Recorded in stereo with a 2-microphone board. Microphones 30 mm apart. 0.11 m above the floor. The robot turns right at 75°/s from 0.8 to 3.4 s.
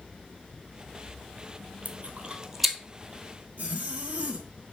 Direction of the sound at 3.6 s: 60° right (ahead or behind).